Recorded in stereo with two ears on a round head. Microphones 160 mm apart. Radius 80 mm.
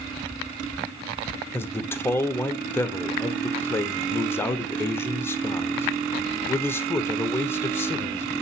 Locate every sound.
1.5 s a man speaking: 15° left (ahead or behind), 1.0 m